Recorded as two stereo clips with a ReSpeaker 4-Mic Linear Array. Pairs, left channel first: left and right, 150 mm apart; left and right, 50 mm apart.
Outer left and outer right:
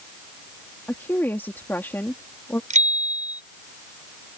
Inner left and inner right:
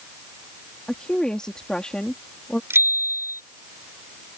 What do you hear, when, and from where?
0.9 s a woman speaking: 15° left (ahead or behind)
2.7 s a bicycle bell: 55° right (ahead or behind)